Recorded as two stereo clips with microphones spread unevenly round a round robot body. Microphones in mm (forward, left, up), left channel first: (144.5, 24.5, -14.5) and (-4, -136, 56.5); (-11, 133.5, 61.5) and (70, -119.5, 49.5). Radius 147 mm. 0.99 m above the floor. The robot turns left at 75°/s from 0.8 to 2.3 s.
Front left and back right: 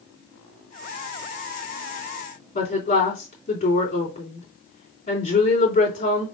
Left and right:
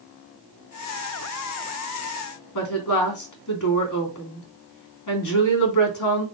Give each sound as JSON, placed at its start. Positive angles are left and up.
{"t": 2.5, "sound": "a woman speaking", "azimuth_deg": 105, "distance_m": 3.0}